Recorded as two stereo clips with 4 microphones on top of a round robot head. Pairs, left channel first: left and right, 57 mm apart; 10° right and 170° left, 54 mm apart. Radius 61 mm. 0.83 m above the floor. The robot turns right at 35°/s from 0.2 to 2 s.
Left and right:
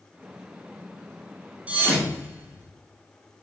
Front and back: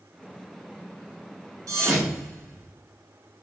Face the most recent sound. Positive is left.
turn(degrees=-145)